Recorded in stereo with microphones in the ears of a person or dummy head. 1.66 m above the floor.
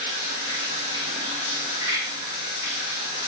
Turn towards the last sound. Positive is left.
turn(degrees=-25)  # may be behind; listen again after turning